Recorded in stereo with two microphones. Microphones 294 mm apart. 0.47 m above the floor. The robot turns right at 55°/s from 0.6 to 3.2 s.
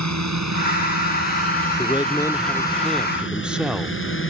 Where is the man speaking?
15° left (ahead or behind); by 4.0 s 5° right (ahead or behind).